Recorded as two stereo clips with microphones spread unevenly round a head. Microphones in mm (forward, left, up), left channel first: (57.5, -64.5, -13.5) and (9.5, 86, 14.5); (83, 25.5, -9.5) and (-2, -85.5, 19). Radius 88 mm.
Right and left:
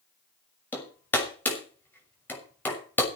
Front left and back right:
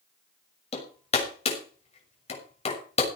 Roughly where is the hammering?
Ahead.